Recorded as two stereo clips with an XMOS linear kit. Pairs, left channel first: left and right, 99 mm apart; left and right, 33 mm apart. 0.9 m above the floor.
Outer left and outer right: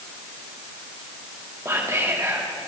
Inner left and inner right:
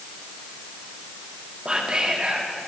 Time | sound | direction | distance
1.6 | whispering | 30° right (ahead or behind) | 2 m